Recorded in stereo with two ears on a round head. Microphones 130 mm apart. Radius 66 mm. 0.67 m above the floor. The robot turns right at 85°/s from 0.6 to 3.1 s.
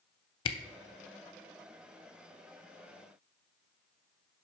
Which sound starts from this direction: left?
A camera shutter, at 0.5 s.